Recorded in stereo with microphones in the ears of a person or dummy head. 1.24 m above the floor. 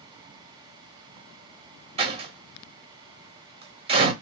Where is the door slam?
25° right (ahead or behind), 1.4 m.